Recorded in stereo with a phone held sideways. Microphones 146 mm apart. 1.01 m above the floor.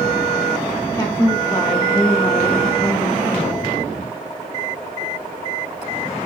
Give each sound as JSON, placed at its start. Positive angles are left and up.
{"t": 0.9, "sound": "a woman speaking", "side_deg": 25, "distance_m": 0.6}